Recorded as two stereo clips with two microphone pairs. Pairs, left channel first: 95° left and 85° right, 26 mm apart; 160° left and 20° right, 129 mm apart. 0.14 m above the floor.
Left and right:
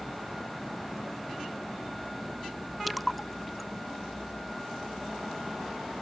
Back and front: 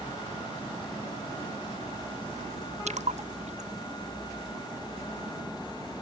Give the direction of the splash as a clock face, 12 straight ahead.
12 o'clock.